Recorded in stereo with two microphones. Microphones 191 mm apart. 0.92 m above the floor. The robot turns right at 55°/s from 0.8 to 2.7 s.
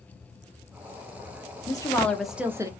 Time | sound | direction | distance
1.7 | a woman speaking | 150° left | 0.5 m